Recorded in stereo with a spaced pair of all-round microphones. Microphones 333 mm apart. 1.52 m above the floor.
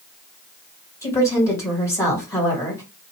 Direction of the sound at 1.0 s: 10° left (ahead or behind).